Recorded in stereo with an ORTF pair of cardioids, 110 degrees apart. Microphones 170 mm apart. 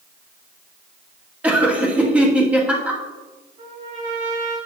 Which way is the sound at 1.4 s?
10° right.